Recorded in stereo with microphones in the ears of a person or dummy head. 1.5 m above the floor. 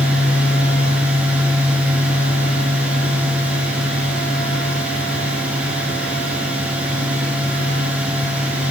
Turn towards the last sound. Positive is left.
turn(degrees=-10)  # may be behind; listen again after turning